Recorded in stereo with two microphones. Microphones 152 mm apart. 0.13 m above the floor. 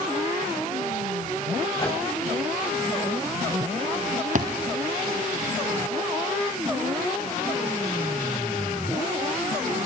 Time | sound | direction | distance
1.8 | a microwave | 25° left (ahead or behind) | 9.5 m
4.3 | a thud | 55° right (ahead or behind) | 3 m